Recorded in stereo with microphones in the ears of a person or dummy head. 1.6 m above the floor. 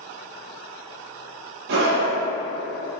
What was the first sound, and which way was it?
A scream, 65° right (ahead or behind).